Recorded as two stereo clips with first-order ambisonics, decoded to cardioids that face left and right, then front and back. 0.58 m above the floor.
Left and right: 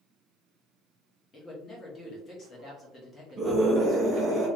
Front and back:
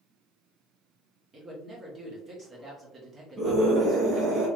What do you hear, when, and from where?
1.3 s a man speaking: 130° left, 1.2 m
3.4 s a scream: 125° right, 1.0 m